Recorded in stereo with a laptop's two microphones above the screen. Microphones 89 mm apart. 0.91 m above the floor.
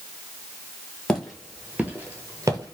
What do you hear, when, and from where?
1.1 s footsteps: 5° left (ahead or behind), 1.1 m; by 2.7 s 45° right (ahead or behind), 1.1 m